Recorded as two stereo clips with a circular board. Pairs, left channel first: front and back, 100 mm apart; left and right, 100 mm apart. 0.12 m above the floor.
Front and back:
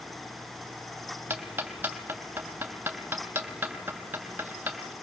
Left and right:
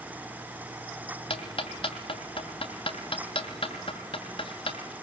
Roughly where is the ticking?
Left.